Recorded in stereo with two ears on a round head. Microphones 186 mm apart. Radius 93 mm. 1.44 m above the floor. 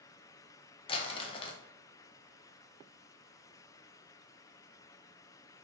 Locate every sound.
0.9 s crumpling: 25° left (ahead or behind), 0.6 m